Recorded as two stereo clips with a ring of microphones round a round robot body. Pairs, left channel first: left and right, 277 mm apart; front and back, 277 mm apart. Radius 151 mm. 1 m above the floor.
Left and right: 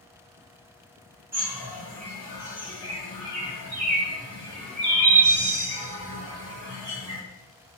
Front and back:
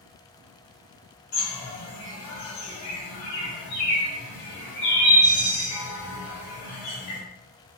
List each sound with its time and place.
1.3 s a bird: 25° right, 1.5 m